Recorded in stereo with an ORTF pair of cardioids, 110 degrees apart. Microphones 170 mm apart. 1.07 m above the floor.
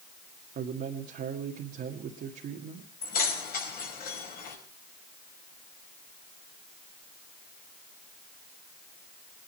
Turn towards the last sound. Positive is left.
turn(degrees=55)